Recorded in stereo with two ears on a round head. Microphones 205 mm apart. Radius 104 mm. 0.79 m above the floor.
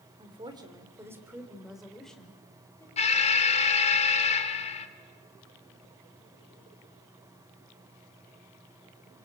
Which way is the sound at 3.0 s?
30° left (ahead or behind).